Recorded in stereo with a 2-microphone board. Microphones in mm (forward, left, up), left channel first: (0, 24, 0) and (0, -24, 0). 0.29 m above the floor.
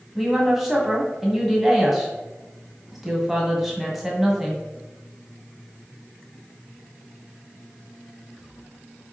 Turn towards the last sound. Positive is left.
turn(degrees=-5)  # may be behind; listen again after turning